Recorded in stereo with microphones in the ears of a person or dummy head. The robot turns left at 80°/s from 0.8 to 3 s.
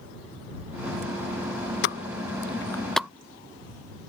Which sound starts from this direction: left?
A pop, at 1.8 s.